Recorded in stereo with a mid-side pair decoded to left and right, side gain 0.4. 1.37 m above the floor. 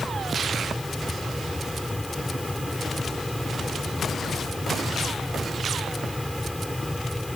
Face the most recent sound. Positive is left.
turn(degrees=10)